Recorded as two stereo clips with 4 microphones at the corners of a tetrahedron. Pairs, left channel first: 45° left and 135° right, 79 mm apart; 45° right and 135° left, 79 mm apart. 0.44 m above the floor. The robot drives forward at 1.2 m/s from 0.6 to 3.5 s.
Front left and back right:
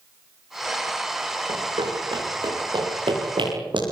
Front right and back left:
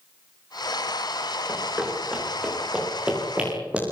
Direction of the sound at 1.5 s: 145° right.